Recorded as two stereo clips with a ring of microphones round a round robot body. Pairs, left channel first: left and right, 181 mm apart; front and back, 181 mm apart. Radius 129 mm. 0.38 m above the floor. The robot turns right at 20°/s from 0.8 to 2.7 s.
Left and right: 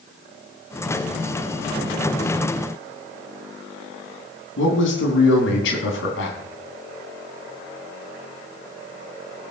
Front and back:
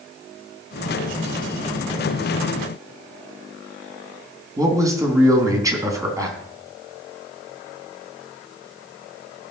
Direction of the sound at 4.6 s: 110° left.